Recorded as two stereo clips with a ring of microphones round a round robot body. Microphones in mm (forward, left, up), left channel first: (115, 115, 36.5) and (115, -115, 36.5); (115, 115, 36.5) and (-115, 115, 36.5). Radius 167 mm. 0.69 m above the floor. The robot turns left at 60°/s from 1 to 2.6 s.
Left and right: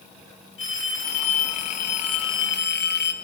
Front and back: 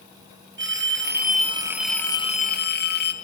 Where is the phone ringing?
140° left, 4 m; by 3.1 s 45° left, 4 m.